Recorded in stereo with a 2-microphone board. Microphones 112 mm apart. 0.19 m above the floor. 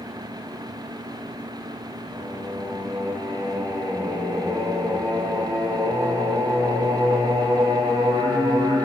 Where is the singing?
30° right (ahead or behind), 4 m.